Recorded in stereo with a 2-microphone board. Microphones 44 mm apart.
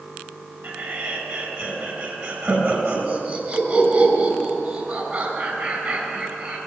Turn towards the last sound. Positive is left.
turn(degrees=-50)  # may be behind; listen again after turning